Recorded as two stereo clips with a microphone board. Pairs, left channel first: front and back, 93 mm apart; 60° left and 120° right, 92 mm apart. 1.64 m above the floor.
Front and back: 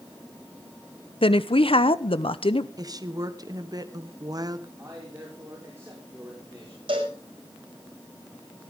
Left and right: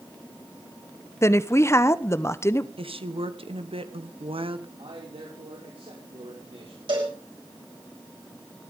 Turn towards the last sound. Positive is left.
turn(degrees=-150)